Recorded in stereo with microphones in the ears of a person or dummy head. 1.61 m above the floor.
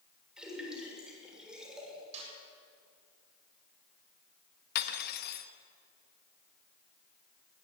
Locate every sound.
0.4 s a splash: 10° right (ahead or behind), 6.5 m
2.1 s a snare drum: 50° right (ahead or behind), 7.5 m
4.8 s cutlery clinking: 55° left (ahead or behind), 1.5 m